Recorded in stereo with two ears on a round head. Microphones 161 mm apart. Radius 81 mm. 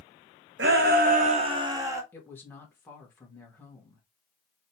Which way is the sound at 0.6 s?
65° right (ahead or behind).